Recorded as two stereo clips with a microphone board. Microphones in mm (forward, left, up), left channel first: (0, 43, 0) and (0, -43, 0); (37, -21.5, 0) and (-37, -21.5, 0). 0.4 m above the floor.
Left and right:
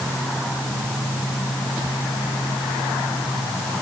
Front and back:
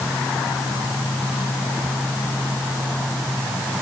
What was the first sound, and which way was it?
Only background noise.